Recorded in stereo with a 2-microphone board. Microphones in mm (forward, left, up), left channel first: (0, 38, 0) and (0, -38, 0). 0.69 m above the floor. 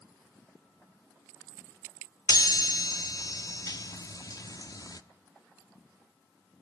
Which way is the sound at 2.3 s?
50° left (ahead or behind).